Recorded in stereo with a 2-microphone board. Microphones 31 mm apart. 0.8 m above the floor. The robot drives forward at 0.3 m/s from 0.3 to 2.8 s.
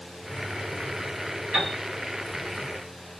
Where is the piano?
45° right (ahead or behind), 1.8 m.